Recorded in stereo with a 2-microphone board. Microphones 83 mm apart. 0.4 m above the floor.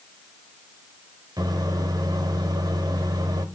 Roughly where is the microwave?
Right.